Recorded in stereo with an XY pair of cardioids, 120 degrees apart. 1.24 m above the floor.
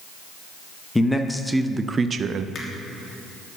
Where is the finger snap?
35° left, 3 m.